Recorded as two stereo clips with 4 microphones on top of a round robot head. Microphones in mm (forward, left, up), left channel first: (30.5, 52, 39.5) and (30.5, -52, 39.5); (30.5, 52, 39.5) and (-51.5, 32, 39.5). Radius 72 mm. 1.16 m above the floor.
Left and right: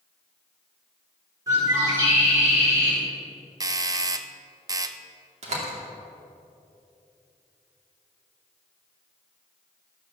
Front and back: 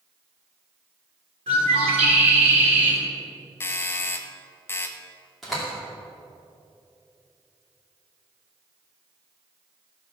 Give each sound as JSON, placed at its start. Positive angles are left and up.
{"t": 1.5, "sound": "a bird", "azimuth_deg": -155, "distance_m": 4.0}
{"t": 3.6, "sound": "a doorbell", "azimuth_deg": -45, "distance_m": 0.8}
{"t": 5.4, "sound": "a door slam", "azimuth_deg": -75, "distance_m": 2.5}